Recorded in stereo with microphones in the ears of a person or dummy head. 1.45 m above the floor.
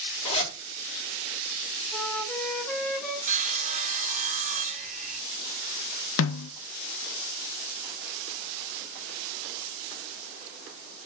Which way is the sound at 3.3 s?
35° right (ahead or behind).